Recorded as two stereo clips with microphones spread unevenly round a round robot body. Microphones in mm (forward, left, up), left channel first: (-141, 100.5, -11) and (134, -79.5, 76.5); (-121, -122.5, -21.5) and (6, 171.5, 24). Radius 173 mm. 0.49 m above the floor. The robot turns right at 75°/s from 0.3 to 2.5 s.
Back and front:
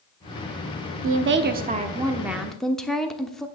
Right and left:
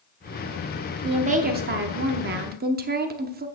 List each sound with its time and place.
1.0 s a woman speaking: 10° right, 0.9 m; by 3.5 s 100° left, 0.9 m